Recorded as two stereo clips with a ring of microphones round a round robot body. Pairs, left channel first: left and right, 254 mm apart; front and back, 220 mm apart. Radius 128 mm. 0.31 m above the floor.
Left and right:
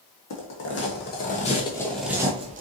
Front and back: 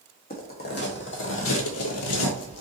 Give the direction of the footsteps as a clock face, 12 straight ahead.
10 o'clock.